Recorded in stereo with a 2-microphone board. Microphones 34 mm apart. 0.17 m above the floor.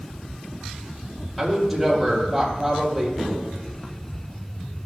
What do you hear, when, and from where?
1.4 s a woman speaking: centre (ahead or behind), 4.5 m
3.2 s tapping: centre (ahead or behind), 2.5 m